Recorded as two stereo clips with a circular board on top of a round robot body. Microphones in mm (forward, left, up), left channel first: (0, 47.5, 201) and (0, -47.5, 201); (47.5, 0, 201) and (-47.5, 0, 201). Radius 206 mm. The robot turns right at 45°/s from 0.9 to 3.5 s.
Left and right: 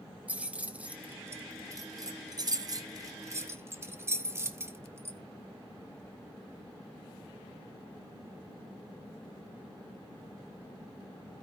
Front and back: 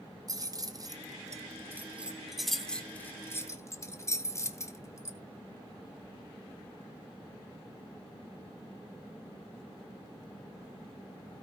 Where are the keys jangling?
160° right, 1.0 m; by 5.2 s 40° right, 1.0 m.